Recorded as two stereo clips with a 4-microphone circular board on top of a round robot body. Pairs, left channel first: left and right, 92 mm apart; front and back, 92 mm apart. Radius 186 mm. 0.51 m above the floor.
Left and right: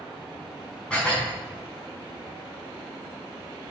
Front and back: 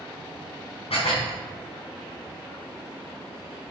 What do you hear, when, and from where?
0.9 s dishes clattering: 10° left, 4 m